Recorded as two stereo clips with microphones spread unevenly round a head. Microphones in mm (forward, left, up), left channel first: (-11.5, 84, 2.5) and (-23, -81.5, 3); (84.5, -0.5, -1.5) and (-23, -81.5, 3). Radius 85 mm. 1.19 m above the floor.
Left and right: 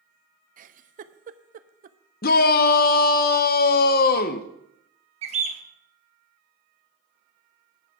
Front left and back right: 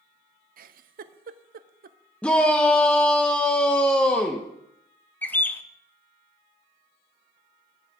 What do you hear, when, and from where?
0.6 s a giggle: 135° right, 0.5 m
2.2 s a shout: 120° left, 0.7 m
5.2 s a bird: 40° right, 0.9 m